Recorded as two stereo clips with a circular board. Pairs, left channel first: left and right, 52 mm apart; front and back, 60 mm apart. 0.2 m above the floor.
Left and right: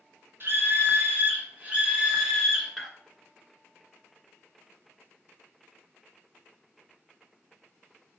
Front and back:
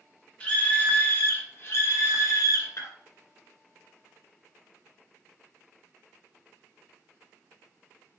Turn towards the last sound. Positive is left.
turn(degrees=-5)